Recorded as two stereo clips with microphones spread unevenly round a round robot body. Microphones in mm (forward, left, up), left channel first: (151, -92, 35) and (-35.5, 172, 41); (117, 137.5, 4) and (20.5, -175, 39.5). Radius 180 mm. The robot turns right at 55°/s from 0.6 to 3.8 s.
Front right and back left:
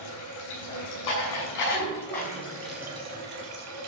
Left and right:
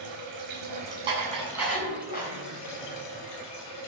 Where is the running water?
80° right, 6 m; by 3.9 s 95° left, 6 m.